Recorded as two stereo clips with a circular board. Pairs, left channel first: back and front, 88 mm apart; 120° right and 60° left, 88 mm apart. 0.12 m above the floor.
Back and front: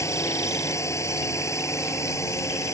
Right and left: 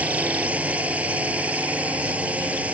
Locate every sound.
0.0 s a drone: 130° left